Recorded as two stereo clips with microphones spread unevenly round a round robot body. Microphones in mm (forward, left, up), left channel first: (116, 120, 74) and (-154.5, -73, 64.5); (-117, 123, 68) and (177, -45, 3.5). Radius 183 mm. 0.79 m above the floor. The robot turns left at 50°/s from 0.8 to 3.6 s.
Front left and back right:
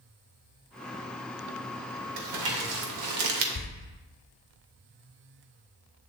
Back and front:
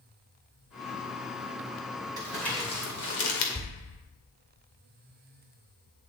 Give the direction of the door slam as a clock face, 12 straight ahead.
9 o'clock.